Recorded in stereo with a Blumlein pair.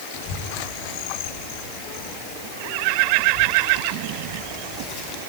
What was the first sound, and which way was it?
A child speaking, 55° left.